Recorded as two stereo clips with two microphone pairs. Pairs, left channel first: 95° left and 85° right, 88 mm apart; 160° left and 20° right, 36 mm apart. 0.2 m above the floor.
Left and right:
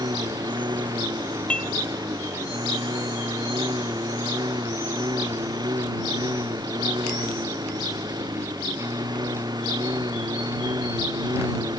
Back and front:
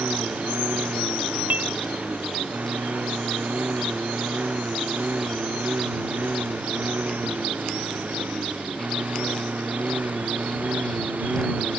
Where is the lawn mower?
55° right.